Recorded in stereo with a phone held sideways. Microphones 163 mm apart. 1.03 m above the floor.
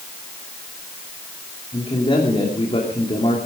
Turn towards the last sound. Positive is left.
turn(degrees=35)  # may be behind; listen again after turning